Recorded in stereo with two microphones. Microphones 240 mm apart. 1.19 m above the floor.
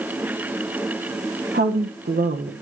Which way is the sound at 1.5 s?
45° right (ahead or behind).